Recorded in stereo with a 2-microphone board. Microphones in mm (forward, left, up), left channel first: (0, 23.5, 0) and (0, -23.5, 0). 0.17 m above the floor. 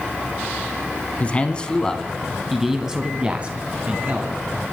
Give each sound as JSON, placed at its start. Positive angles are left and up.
{"t": 1.2, "sound": "a man speaking", "side_deg": 30, "distance_m": 1.4}